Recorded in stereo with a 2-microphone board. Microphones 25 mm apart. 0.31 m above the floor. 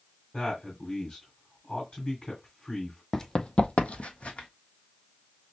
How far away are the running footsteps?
About 0.5 m.